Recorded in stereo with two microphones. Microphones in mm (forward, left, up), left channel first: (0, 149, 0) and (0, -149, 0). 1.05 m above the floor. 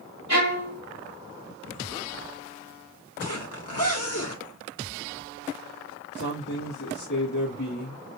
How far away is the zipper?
About 1.5 m.